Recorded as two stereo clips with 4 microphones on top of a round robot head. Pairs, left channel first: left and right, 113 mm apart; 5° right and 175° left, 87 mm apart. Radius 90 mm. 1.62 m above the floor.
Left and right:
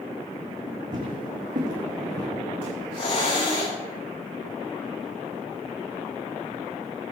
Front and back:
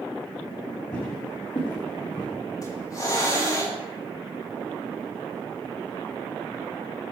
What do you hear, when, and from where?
0.9 s footsteps: 65° right, 6.5 m
2.6 s a hiss: 45° left, 9 m